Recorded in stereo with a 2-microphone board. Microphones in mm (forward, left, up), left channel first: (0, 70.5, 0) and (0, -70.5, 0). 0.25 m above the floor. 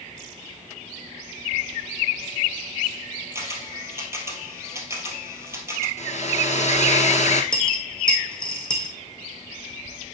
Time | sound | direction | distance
3.4 | a camera shutter | 20° right (ahead or behind) | 2 m
6.0 | a hair dryer | 55° left (ahead or behind) | 1.6 m
7.5 | a dropped coin | 5° left (ahead or behind) | 2.5 m